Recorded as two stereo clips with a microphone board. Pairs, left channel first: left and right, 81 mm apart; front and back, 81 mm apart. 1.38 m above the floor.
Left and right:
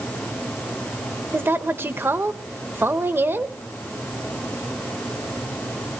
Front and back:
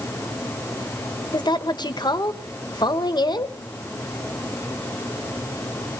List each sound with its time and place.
1.3 s a woman speaking: 25° right, 1.0 m